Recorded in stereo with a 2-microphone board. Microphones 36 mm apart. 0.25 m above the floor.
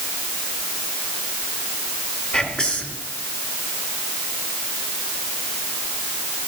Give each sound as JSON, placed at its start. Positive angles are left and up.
{"t": 2.3, "sound": "whispering", "side_deg": 30, "distance_m": 2.0}